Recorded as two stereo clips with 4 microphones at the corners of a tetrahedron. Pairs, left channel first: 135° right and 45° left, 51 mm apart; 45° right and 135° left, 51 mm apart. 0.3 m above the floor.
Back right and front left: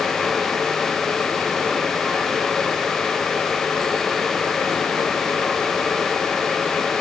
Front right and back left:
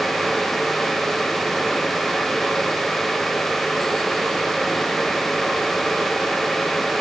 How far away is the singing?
No singing in this recording.